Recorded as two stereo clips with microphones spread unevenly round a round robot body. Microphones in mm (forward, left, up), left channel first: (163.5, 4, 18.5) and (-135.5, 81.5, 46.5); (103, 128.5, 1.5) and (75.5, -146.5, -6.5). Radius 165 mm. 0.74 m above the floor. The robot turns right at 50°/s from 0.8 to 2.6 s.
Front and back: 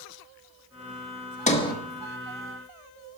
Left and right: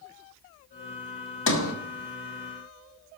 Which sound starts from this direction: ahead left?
A sliding door, at 1.5 s.